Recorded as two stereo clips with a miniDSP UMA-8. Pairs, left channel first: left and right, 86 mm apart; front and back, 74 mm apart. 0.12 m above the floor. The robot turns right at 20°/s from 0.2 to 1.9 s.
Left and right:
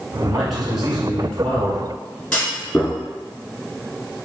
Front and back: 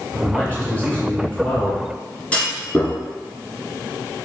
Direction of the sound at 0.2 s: 10° right.